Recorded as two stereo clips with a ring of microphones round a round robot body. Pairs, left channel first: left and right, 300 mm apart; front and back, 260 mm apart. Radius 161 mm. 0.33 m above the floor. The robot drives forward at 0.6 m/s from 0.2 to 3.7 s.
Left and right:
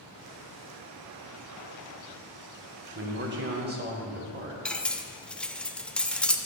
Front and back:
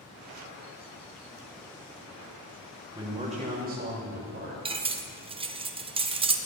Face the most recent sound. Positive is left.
turn(degrees=170)